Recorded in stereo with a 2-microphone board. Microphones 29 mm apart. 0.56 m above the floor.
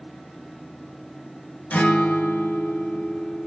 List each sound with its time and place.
1.7 s a guitar: 75° left (ahead or behind), 1.1 m